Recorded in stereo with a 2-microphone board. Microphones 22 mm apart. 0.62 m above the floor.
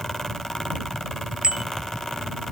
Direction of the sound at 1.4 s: 45° right (ahead or behind).